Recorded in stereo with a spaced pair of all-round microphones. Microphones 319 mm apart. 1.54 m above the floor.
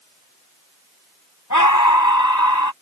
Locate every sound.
1.5 s a scream: 65° left (ahead or behind)